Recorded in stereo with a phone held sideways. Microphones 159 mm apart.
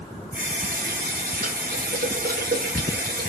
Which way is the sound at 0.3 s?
70° right (ahead or behind).